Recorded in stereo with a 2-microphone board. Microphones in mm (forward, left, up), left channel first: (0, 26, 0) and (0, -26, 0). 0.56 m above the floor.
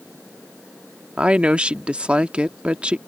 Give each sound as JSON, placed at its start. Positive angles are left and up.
{"t": 1.2, "sound": "a woman speaking", "side_deg": -20}